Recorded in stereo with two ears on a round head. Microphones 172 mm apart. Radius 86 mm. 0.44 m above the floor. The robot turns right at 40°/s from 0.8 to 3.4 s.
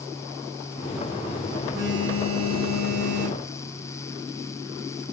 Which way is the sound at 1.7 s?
160° right.